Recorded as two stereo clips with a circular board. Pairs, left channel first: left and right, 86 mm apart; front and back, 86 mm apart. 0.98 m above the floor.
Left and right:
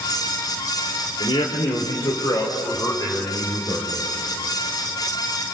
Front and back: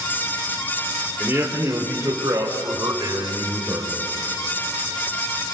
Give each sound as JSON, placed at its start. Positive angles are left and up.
{"t": 1.2, "sound": "a man speaking", "azimuth_deg": 115, "distance_m": 3.5}